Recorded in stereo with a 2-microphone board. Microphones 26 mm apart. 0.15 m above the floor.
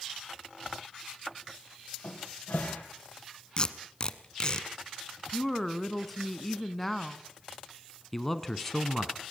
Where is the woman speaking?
10° left (ahead or behind), 1.0 m.